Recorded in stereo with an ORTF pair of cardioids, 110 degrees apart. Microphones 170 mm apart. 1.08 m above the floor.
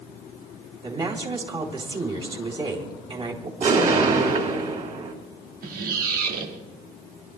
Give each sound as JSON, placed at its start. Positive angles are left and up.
{"t": 0.8, "sound": "a woman speaking", "azimuth_deg": -30, "distance_m": 3.0}
{"t": 3.6, "sound": "an explosion", "azimuth_deg": -50, "distance_m": 4.5}
{"t": 5.6, "sound": "a squeak", "azimuth_deg": -55, "distance_m": 1.5}